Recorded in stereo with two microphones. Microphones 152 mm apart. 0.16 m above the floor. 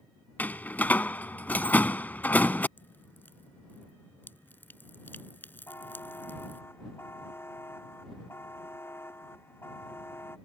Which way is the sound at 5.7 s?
15° left (ahead or behind).